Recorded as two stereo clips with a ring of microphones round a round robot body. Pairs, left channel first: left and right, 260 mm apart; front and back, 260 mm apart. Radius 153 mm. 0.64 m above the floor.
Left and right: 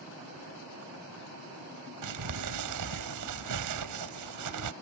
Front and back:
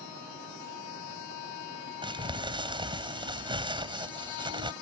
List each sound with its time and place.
2.0 s crumpling: 110° right